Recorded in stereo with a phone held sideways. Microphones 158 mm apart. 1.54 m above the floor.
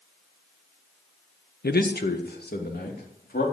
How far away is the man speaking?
About 1.1 m.